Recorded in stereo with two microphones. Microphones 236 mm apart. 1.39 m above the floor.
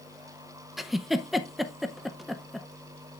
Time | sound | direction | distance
0.8 | a giggle | centre (ahead or behind) | 0.6 m